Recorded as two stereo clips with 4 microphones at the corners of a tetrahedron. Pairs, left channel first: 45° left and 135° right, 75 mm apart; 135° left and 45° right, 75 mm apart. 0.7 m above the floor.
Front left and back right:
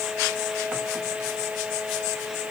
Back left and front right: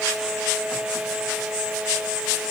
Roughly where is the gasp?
No gasp in this recording.